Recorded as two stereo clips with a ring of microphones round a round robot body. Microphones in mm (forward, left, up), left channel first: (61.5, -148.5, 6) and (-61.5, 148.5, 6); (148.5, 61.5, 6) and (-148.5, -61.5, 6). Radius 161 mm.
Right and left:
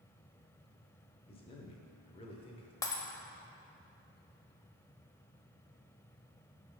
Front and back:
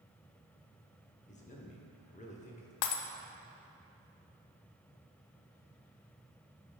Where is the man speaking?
15° right, 0.8 m.